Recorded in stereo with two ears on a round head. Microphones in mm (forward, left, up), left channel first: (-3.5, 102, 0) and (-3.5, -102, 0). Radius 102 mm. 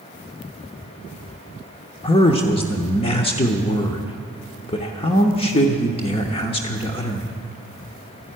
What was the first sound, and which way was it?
A man speaking, 25° left (ahead or behind).